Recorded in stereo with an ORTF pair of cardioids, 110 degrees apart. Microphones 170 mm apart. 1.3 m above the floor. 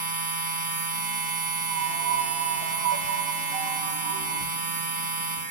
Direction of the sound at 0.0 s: 50° right.